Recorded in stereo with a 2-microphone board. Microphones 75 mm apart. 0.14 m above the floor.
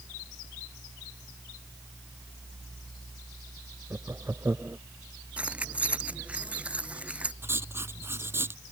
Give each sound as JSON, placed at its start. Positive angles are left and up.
{"t": 3.9, "sound": "laughter", "side_deg": -35}
{"t": 5.4, "sound": "keys jangling", "side_deg": -15}
{"t": 7.4, "sound": "writing", "side_deg": -30}